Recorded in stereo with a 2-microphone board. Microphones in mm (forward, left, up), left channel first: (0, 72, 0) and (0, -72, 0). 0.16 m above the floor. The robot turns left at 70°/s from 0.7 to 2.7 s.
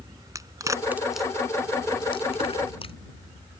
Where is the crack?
25° right (ahead or behind); by 3.0 s 40° left (ahead or behind).